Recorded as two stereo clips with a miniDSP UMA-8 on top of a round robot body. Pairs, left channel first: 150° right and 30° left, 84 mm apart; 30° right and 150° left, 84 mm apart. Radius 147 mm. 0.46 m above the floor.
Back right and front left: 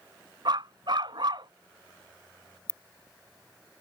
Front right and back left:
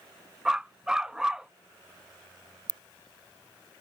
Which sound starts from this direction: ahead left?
A dog barking, at 0.5 s.